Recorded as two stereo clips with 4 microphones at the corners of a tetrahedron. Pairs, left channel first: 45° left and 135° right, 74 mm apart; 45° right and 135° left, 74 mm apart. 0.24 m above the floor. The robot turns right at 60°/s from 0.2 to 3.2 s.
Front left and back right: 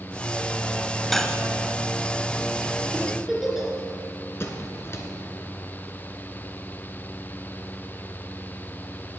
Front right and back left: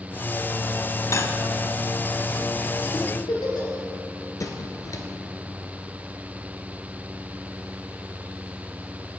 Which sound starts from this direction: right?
A giggle, at 2.9 s.